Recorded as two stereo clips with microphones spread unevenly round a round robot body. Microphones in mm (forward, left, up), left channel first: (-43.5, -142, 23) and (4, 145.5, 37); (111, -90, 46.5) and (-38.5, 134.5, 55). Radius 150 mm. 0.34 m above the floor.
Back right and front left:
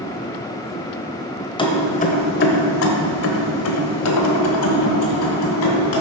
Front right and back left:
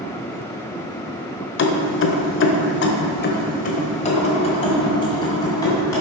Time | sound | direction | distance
1.6 | keys jangling | 30° right | 1.1 m